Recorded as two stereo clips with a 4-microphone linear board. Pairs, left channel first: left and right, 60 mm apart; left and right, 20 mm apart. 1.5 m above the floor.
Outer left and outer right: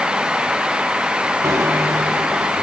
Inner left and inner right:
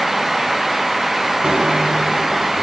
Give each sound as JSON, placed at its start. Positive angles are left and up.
{"t": 1.4, "sound": "a bicycle bell", "side_deg": -55, "distance_m": 2.5}